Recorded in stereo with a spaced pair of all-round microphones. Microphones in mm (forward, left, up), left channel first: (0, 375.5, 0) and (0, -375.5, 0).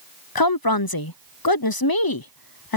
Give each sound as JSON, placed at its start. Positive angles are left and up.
{"t": 0.3, "sound": "a woman speaking", "side_deg": 30}